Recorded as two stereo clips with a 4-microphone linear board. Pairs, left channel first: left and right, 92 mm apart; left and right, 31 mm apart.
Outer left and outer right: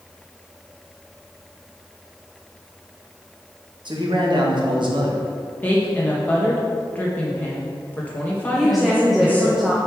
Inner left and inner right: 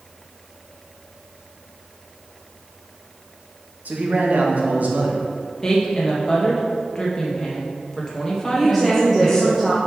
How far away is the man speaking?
About 1.3 m.